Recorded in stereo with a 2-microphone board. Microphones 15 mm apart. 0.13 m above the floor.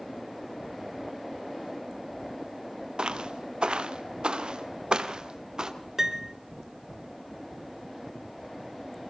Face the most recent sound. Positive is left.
turn(degrees=-25)  # may be behind; listen again after turning